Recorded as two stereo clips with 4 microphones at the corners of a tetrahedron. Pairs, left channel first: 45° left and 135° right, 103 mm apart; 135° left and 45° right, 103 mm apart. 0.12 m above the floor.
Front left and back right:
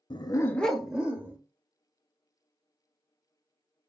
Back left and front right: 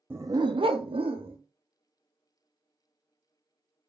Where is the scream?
I don't hear a scream.